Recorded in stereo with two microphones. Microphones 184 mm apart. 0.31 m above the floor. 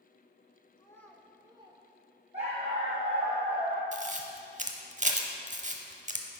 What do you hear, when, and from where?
0.8 s a child speaking: 25° left (ahead or behind), 0.5 m; by 1.8 s 30° right (ahead or behind), 0.7 m
2.3 s a dog barking: 35° right (ahead or behind), 2.5 m
3.9 s a camera shutter: 40° right (ahead or behind), 0.7 m